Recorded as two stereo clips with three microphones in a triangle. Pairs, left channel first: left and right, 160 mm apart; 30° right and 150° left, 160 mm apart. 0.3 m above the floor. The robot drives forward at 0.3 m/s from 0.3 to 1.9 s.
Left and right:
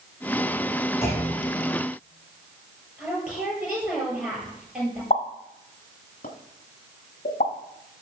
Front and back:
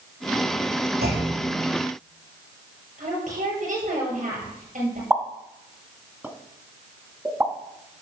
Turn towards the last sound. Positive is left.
turn(degrees=75)